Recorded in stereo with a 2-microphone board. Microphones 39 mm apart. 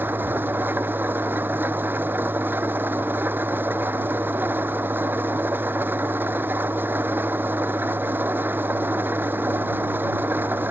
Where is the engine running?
60° right (ahead or behind).